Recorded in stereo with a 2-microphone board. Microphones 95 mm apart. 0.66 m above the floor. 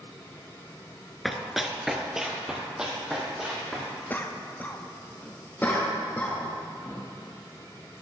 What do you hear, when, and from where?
1.2 s running footsteps: centre (ahead or behind), 0.6 m; by 3.9 s 5° right (ahead or behind), 2.5 m
4.1 s a cough: 20° left (ahead or behind), 0.5 m
5.6 s a cough: 20° left (ahead or behind), 0.9 m